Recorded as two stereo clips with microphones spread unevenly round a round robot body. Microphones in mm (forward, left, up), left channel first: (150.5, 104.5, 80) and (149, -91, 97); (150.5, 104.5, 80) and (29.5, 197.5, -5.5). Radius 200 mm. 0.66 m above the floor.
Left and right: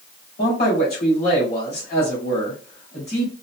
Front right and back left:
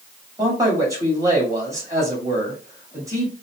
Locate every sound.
0.4 s a man speaking: 100° left, 2 m